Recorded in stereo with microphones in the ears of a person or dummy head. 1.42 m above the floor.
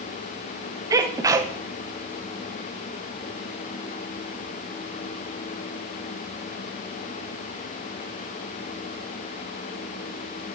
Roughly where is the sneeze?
Right.